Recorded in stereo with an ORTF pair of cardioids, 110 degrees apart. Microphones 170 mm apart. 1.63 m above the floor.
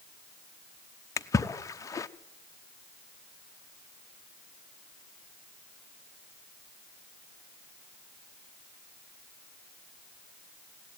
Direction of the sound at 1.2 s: 20° left.